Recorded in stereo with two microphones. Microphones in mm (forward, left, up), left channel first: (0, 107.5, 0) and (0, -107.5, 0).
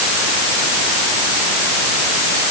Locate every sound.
Only background noise.